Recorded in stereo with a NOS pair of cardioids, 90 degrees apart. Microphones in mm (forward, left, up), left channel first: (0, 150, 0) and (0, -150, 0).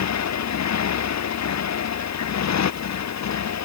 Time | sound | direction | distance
0.0 | a motorcycle | 60° left | ?